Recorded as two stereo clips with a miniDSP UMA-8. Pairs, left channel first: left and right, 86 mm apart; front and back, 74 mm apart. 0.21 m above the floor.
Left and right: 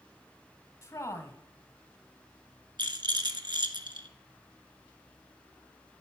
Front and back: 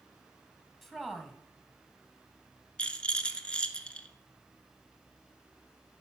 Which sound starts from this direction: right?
A rattle, at 2.8 s.